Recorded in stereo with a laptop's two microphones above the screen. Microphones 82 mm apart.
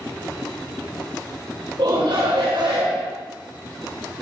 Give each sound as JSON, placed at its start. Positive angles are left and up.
{"t": 1.8, "sound": "a shout", "side_deg": -70, "distance_m": 4.0}